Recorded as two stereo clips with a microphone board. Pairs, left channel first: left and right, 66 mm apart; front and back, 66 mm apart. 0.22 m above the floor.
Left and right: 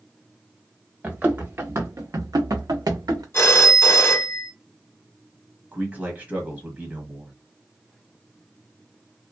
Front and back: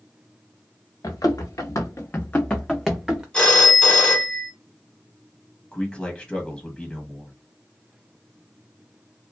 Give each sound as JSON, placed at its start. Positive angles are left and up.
{"t": 1.0, "sound": "running footsteps", "azimuth_deg": -20, "distance_m": 1.2}
{"t": 3.3, "sound": "a phone ringing", "azimuth_deg": 60, "distance_m": 0.9}
{"t": 5.7, "sound": "a man speaking", "azimuth_deg": -55, "distance_m": 1.1}